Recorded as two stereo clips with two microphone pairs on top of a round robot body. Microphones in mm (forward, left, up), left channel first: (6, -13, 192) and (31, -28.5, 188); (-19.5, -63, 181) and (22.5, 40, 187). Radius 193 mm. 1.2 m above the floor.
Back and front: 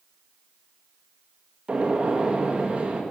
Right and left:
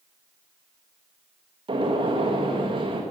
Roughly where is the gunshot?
Ahead left.